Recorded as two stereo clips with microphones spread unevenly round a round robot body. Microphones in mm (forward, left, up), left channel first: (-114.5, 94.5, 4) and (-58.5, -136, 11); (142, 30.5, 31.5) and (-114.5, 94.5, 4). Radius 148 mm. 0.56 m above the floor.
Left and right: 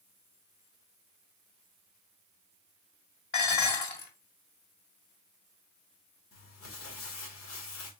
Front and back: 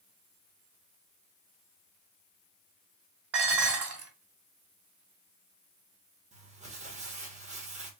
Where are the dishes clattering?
145° left, 2.5 m.